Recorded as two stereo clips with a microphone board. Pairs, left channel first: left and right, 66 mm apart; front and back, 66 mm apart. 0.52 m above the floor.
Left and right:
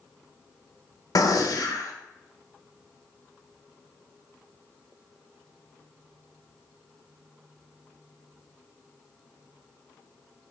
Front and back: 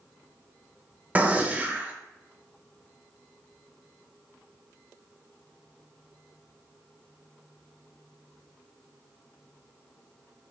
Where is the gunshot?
115° left, 0.7 m.